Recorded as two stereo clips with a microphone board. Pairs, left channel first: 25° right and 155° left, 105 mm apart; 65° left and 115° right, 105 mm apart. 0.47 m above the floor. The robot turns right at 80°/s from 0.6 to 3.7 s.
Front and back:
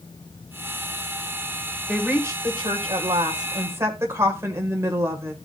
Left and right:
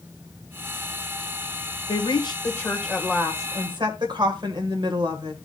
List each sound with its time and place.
1.9 s a woman speaking: 70° left, 1.7 m; by 5.3 s 145° right, 1.7 m